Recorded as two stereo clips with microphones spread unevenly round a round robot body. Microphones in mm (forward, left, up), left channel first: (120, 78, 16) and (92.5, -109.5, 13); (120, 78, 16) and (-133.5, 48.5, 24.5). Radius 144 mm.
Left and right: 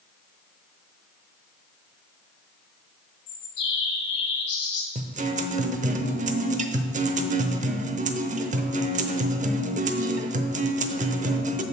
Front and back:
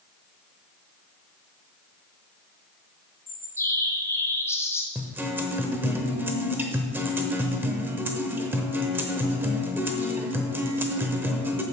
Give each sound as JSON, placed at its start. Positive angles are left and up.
{"t": 3.3, "sound": "a bird", "azimuth_deg": 85, "distance_m": 2.0}
{"t": 5.0, "sound": "a guitar", "azimuth_deg": -90, "distance_m": 0.8}